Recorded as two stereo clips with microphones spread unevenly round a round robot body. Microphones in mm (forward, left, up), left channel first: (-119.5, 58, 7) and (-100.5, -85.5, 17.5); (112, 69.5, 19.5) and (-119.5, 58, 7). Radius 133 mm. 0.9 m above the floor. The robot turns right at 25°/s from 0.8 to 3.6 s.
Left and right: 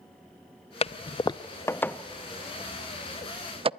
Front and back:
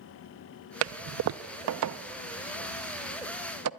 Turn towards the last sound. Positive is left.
turn(degrees=-140)